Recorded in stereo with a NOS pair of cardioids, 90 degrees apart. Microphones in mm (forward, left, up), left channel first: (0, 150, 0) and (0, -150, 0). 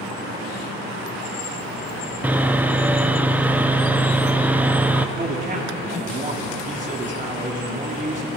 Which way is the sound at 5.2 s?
25° right.